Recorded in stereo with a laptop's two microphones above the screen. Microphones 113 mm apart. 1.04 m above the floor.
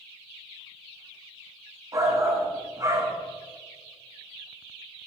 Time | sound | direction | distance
1.9 | a shout | 30° right (ahead or behind) | 1.2 m